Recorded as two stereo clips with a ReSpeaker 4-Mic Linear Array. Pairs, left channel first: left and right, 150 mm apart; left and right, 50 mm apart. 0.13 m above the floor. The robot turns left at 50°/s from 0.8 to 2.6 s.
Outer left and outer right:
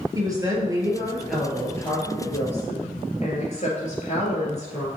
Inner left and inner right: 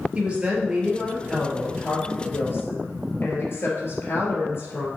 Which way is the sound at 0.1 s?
155° right.